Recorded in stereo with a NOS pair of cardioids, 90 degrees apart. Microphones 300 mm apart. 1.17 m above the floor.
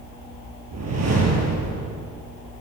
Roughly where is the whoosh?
Ahead right.